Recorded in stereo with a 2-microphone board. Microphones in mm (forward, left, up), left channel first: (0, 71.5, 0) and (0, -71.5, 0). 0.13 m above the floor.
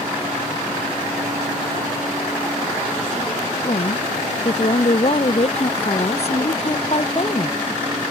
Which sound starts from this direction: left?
A woman speaking, at 3.6 s.